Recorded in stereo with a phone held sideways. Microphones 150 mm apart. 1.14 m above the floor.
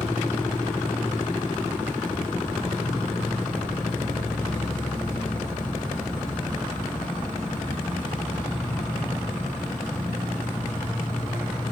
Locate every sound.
0.0 s an insect: 10° left (ahead or behind), 2 m